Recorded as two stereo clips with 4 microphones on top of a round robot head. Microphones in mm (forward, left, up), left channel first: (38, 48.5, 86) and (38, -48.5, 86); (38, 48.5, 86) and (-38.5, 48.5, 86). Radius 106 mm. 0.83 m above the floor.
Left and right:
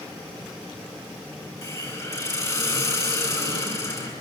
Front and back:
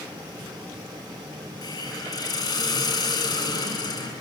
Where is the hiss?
35° left, 10 m.